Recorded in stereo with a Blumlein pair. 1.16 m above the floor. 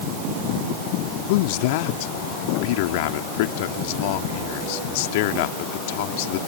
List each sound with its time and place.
1.3 s a man speaking: 50° left